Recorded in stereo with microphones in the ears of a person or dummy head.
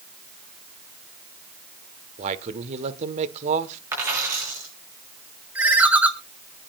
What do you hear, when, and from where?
2.2 s a man speaking: 35° right (ahead or behind), 1.4 m
3.9 s a dropped coin: 15° right (ahead or behind), 8 m
5.5 s a ringtone: 10° right (ahead or behind), 1.9 m